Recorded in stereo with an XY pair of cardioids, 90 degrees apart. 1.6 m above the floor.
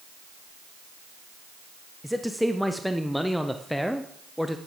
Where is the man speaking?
5° left, 0.7 m.